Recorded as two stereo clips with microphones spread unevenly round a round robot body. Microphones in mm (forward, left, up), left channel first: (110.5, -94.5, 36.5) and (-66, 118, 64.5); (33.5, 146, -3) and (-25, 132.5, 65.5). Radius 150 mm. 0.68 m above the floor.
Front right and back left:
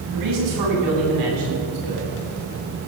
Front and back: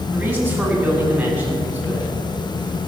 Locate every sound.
0.1 s a man speaking: 120° left, 5.5 m